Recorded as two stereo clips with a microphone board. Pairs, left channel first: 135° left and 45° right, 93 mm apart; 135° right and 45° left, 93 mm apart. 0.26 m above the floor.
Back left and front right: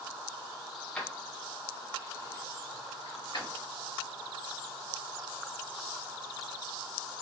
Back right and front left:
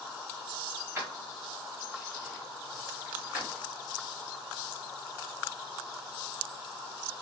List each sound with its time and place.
0.9 s keys jangling: 75° left, 1.0 m; by 3.6 s 125° left, 2.5 m